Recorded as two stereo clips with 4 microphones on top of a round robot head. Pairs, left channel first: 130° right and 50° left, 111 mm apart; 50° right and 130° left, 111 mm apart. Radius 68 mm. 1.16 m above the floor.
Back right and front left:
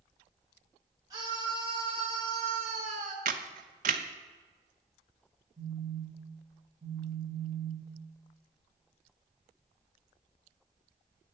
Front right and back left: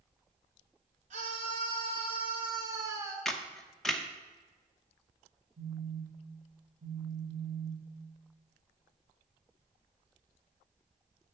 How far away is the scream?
About 1.3 m.